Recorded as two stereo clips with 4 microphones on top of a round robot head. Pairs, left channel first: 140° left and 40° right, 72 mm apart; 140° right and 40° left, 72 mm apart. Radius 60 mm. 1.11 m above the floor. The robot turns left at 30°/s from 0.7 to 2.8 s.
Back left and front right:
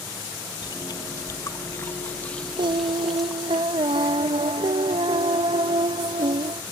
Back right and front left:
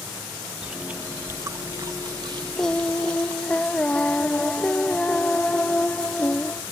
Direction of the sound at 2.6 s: 60° right.